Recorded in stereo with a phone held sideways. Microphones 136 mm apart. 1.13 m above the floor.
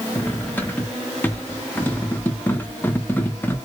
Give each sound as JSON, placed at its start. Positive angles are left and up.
{"t": 0.1, "sound": "cutlery clinking", "side_deg": 15, "distance_m": 0.7}